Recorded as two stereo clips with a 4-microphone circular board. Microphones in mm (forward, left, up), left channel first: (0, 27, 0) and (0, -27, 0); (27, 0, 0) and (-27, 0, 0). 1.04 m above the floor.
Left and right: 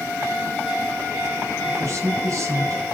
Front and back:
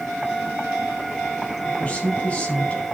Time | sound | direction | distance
1.6 | a man speaking | 65° right | 4.5 m